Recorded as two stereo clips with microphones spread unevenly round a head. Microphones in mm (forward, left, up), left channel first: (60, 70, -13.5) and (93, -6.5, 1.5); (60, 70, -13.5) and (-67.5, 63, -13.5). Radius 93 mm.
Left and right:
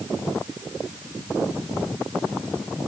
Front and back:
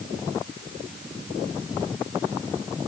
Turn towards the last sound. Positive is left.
No sound to turn to.